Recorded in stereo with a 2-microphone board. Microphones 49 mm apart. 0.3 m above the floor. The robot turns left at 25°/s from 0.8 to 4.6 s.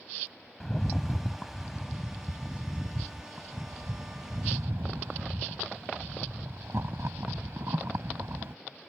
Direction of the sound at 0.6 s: 10° left.